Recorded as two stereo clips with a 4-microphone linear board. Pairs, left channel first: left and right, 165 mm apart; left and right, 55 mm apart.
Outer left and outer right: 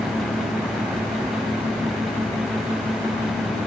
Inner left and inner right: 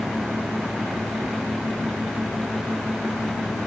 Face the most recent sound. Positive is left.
No sound to turn to.